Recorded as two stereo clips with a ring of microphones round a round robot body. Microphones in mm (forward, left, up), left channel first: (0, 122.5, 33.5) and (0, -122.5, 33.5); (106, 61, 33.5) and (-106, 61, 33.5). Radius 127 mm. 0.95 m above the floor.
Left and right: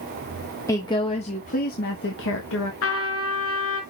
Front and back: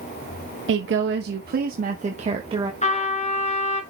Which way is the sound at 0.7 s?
165° left.